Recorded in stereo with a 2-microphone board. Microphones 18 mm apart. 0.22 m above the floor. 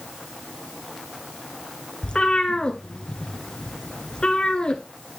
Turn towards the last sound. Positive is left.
turn(degrees=55)  # may be behind; listen again after turning